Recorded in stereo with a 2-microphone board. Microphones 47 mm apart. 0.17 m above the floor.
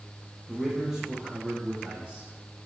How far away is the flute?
I don't hear a flute.